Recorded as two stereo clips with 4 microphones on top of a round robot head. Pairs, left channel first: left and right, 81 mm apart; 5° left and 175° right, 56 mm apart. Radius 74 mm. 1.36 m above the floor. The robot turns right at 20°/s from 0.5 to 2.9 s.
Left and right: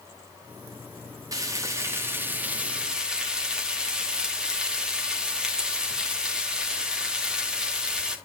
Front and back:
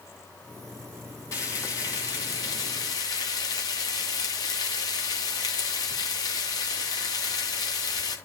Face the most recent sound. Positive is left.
turn(degrees=-10)